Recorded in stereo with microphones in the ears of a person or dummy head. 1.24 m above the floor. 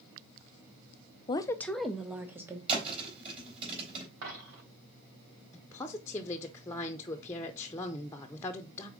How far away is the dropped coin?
About 2.5 m.